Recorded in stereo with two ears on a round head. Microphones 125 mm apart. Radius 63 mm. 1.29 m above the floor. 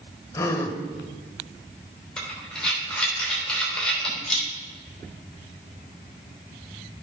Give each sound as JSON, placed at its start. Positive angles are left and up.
{"t": 0.3, "sound": "a gasp", "side_deg": 25, "distance_m": 1.1}
{"t": 2.2, "sound": "breathing", "side_deg": 5, "distance_m": 3.0}